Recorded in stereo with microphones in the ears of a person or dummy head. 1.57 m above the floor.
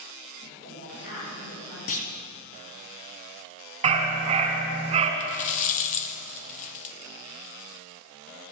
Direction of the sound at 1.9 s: 45° left (ahead or behind).